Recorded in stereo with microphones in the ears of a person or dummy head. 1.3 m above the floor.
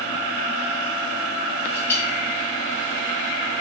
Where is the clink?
20° left (ahead or behind), 5.5 m.